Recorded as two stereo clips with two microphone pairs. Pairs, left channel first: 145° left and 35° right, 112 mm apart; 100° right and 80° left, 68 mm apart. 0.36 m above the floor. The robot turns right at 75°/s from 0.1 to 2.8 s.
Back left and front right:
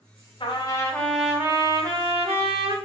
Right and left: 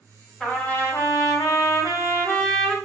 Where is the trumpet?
175° left, 0.8 m; by 2.8 s 10° right, 0.8 m.